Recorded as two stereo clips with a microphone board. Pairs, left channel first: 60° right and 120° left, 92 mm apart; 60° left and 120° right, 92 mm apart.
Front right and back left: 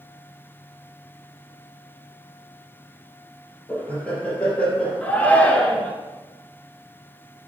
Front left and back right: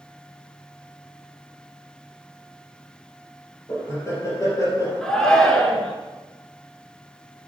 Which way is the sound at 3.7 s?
15° left.